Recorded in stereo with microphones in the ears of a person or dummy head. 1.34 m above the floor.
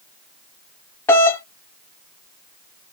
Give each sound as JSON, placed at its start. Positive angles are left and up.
{"t": 1.1, "sound": "a doorbell", "side_deg": 15, "distance_m": 0.9}